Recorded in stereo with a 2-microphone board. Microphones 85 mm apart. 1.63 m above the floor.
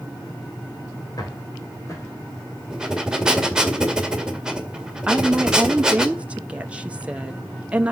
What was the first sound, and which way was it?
Footsteps, 50° left (ahead or behind).